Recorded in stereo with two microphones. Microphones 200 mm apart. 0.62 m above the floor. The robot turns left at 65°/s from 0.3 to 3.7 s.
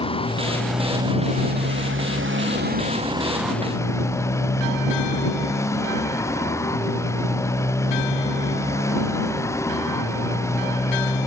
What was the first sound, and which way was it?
A motorcycle, 25° left.